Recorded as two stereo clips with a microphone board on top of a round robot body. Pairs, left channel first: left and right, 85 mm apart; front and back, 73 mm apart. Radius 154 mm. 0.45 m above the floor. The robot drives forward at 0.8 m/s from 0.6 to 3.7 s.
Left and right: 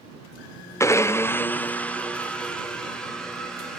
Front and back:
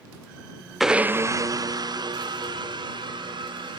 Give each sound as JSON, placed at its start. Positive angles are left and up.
{"t": 0.8, "sound": "a blender", "azimuth_deg": 90, "distance_m": 0.6}